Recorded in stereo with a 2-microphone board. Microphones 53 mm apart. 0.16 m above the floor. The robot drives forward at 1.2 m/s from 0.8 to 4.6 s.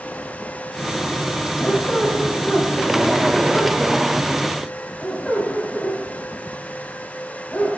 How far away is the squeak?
About 4 m.